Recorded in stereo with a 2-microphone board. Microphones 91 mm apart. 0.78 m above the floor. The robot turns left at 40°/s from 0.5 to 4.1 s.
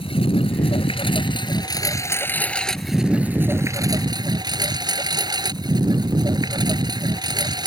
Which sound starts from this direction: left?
A lawn mower, at 0.0 s.